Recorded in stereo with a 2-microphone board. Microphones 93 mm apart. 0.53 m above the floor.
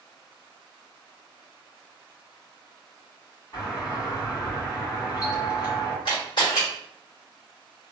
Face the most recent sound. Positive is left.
turn(degrees=60)  # may be behind; listen again after turning